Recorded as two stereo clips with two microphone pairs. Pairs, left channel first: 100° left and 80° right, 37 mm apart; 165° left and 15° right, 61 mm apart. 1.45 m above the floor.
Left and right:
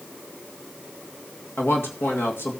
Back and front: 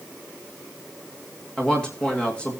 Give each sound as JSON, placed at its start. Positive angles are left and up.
{"t": 1.6, "sound": "a man speaking", "azimuth_deg": 90, "distance_m": 2.0}